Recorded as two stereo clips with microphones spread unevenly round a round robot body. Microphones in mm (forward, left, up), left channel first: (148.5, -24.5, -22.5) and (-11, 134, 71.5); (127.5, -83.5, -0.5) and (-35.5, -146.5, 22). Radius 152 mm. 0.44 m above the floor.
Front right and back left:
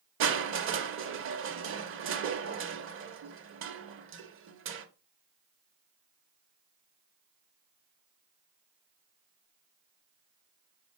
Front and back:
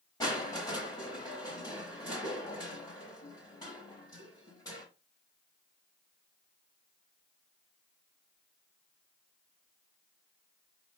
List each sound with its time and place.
0.2 s crushing: 95° left, 0.8 m